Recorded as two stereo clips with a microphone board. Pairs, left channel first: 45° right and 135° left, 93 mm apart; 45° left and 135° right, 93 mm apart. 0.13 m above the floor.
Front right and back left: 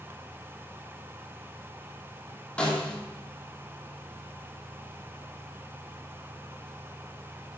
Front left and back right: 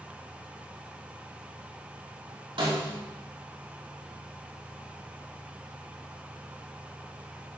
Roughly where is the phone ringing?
No phone ringing in this recording.